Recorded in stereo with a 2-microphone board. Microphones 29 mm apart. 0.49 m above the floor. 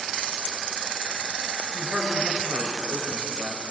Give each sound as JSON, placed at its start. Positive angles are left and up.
{"t": 1.7, "sound": "a man speaking", "side_deg": -70, "distance_m": 7.0}